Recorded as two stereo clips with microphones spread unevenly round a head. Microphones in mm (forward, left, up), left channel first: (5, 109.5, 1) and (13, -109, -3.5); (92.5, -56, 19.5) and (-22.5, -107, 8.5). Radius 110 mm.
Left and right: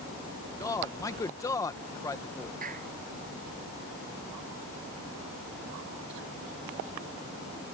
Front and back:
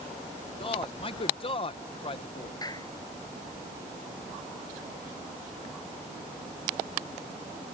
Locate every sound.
0.6 s a man speaking: 25° left
2.6 s a clap: 35° right